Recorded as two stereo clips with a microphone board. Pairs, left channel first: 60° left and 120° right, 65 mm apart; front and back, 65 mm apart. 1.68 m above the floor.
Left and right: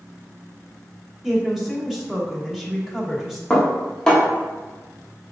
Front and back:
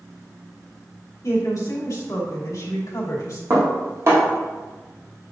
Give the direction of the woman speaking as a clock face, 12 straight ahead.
1 o'clock.